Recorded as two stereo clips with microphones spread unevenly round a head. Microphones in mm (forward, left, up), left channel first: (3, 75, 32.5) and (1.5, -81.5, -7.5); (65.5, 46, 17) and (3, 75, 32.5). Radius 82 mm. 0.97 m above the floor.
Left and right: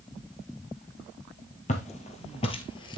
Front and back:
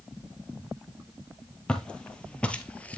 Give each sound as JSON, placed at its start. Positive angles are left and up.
{"t": 1.7, "sound": "footsteps", "azimuth_deg": 55, "distance_m": 2.0}